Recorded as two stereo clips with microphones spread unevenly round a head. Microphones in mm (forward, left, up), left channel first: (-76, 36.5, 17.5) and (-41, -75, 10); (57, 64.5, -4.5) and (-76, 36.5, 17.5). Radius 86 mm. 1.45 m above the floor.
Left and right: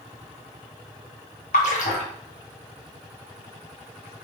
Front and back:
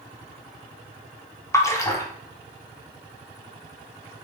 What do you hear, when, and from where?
1.5 s a splash: 80° left, 0.6 m